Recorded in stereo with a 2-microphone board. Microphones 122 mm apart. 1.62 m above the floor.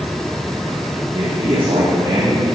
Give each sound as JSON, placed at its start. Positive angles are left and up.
{"t": 1.1, "sound": "a man speaking", "side_deg": -45, "distance_m": 2.0}